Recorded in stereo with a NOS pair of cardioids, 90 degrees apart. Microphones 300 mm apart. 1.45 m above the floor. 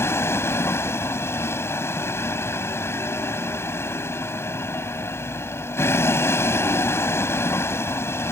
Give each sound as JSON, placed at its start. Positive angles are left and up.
{"t": 0.0, "sound": "a vehicle", "azimuth_deg": 10}